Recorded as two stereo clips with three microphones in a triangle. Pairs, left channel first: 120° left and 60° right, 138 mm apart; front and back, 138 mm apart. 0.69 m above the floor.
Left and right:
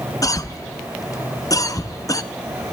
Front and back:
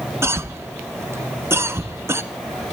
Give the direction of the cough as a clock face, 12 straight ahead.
7 o'clock.